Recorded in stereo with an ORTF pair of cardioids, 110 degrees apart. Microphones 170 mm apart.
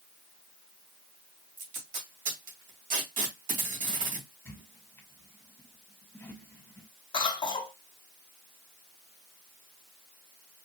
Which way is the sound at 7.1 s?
25° left.